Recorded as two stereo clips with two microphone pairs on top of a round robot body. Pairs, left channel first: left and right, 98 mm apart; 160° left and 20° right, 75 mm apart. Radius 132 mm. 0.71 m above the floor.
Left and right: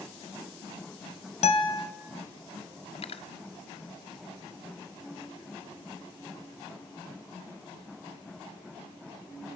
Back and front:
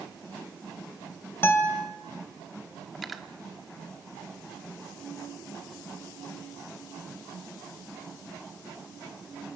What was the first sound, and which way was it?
A guitar, 100° left.